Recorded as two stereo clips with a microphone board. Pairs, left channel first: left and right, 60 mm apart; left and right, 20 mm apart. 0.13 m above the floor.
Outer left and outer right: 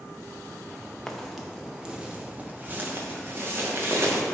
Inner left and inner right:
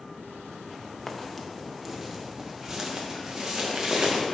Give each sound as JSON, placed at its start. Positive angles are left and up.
{"t": 1.1, "sound": "footsteps", "side_deg": 5, "distance_m": 1.3}